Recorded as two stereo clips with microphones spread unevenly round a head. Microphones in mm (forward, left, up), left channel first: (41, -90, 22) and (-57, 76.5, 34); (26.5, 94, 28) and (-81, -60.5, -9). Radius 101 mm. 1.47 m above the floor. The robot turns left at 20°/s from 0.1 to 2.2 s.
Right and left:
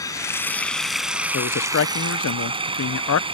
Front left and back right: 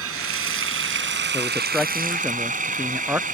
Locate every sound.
0.0 s running water: 135° right; by 3.3 s 175° right
1.3 s a man speaking: 25° right; by 3.2 s 40° right